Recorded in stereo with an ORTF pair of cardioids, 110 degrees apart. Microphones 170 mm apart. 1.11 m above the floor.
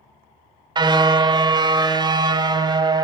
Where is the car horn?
25° right, 2 m.